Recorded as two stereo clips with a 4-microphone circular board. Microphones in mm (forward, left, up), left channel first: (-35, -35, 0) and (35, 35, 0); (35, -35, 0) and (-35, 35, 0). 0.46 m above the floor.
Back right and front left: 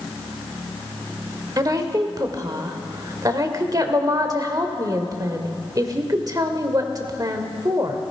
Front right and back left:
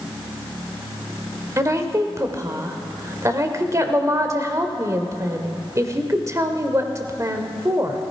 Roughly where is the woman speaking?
Left.